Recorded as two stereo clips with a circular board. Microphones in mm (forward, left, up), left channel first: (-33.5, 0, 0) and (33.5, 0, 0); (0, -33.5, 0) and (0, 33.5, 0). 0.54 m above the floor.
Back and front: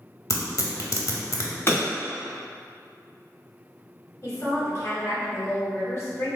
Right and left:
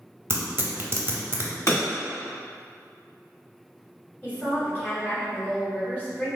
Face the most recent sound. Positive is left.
turn(degrees=-145)